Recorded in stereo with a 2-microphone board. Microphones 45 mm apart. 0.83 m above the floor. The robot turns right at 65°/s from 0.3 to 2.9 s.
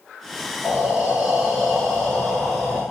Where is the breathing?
65° right, 1.3 m; by 2.8 s 80° left, 1.3 m.